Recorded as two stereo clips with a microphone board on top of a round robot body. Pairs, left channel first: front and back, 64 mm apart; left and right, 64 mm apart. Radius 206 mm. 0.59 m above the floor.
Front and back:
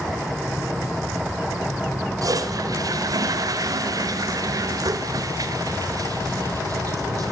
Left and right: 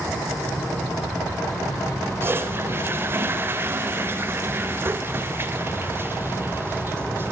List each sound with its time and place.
2.2 s a toilet flushing: 145° right, 0.9 m